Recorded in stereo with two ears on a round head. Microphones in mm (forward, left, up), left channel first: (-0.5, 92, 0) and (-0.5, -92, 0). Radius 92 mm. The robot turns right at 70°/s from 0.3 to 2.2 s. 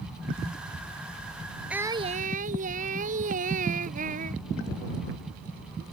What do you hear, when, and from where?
1.7 s singing: 175° right; by 4.4 s 140° right